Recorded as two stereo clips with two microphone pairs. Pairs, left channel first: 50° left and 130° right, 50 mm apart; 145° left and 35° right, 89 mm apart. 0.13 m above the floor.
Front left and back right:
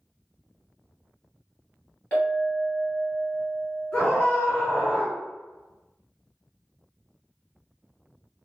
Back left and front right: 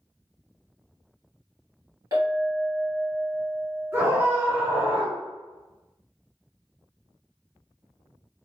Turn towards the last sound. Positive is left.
turn(degrees=-10)